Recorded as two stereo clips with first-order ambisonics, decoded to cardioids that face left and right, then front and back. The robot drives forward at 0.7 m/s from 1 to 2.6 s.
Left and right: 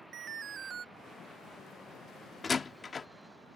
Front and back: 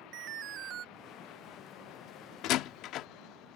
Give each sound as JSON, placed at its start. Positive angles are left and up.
{"t": 0.1, "sound": "an alarm", "azimuth_deg": -150}
{"t": 2.4, "sound": "a door slam", "azimuth_deg": 20}